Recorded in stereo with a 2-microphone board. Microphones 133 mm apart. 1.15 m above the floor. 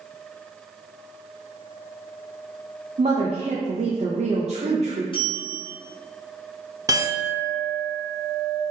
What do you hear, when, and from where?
3.0 s a woman speaking: 60° right (ahead or behind), 0.5 m
5.1 s a bell: 40° left (ahead or behind), 1.2 m
6.9 s a clink: 25° right (ahead or behind), 0.5 m